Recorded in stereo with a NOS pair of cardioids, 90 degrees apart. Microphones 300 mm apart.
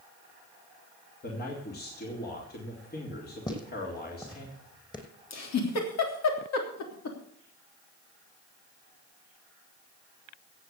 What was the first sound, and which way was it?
A man speaking, 30° left.